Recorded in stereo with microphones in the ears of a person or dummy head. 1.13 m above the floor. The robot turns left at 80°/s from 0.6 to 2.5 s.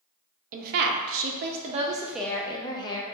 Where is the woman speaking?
50° right, 0.5 m; by 3.1 s 155° left, 0.5 m.